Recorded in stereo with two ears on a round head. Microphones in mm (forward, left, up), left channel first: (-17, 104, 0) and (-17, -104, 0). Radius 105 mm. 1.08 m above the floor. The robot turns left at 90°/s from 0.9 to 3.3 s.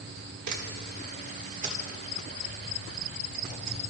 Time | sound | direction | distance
0.5 | a camera shutter | 80° right | 1.8 m